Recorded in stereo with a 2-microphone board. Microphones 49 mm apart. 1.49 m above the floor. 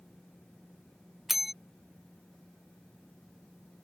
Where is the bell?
5° right (ahead or behind).